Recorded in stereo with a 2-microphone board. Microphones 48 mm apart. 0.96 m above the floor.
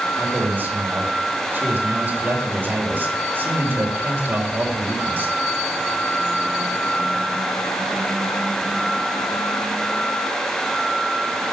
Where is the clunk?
No clunk in this recording.